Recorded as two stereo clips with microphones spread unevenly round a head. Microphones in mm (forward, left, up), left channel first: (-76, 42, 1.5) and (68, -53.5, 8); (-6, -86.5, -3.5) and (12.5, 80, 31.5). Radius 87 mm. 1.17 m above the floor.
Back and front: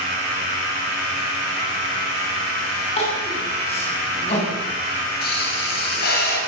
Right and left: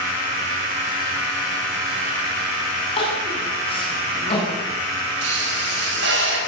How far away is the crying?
About 8.5 m.